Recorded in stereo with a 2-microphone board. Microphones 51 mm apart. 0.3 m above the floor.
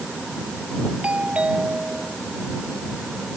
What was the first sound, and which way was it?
A doorbell, 25° right (ahead or behind).